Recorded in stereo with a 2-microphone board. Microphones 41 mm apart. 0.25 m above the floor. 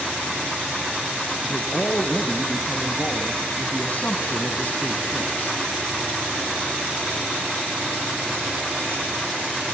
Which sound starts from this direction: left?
A man speaking, at 1.4 s.